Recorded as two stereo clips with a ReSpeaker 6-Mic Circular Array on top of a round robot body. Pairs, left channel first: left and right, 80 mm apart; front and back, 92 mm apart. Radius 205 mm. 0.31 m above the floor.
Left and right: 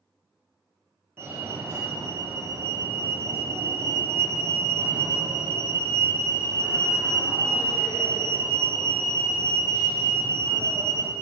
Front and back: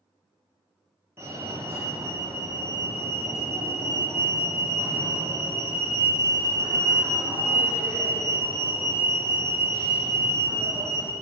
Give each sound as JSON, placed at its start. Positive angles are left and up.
{"t": 1.2, "sound": "a fire alarm", "azimuth_deg": -135, "distance_m": 2.0}